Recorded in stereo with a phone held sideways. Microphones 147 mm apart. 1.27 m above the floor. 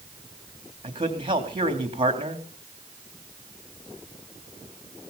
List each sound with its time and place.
0.8 s a man speaking: 35° right (ahead or behind), 3.5 m